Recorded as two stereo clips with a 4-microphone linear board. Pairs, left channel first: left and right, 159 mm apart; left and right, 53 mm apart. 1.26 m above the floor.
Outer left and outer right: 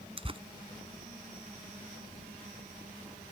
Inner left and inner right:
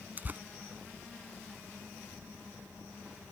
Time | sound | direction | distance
0.2 | tearing paper | 35° right (ahead or behind) | ?